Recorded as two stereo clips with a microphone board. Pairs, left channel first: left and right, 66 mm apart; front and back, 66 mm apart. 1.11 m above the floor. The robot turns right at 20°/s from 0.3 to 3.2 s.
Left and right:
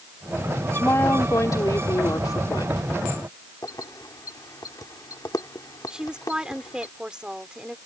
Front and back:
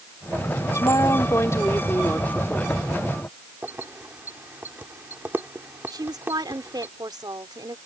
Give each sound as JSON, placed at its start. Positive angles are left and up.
{"t": 0.7, "sound": "a woman speaking", "azimuth_deg": 35}
{"t": 3.6, "sound": "keys jangling", "azimuth_deg": 120}
{"t": 5.9, "sound": "a woman speaking", "azimuth_deg": -165}